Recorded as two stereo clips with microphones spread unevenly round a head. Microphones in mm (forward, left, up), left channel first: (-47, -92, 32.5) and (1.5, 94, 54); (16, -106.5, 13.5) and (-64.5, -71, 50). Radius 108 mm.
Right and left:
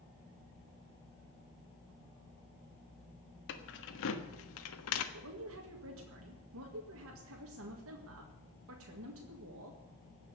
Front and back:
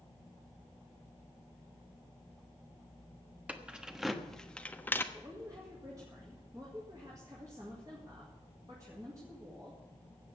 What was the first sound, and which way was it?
Keys jangling, 135° right.